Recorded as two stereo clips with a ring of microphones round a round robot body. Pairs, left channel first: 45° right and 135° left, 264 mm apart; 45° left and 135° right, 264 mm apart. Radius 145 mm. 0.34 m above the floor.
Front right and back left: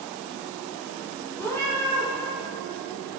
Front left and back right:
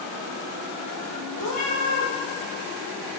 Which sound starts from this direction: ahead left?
A cat meowing, at 1.4 s.